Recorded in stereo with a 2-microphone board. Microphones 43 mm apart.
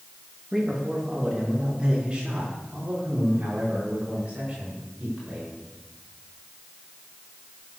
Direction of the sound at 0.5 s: 5° right (ahead or behind).